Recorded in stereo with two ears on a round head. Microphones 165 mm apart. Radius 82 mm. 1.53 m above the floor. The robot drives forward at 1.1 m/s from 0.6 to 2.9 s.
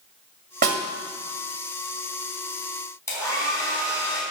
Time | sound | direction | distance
0.6 | a snare drum | 50° right (ahead or behind) | 2.0 m
3.1 | a hair dryer | 15° left (ahead or behind) | 3 m